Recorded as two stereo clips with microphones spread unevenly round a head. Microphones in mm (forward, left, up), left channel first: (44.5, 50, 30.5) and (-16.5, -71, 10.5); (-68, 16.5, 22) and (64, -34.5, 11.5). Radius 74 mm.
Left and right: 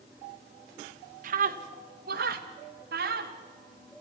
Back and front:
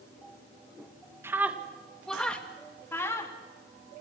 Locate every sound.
1.2 s a scream: 95° right, 2 m; by 3.3 s 130° right, 4 m